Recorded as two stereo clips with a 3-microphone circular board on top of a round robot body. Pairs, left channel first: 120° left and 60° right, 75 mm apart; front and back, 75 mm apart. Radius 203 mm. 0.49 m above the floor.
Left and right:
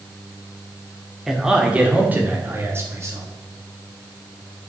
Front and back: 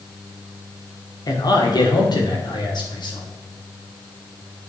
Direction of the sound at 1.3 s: 25° left.